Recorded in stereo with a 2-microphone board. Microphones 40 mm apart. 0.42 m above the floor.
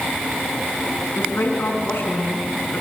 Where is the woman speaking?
70° left (ahead or behind), 4.5 m; by 2.8 s 75° left (ahead or behind), 5.5 m.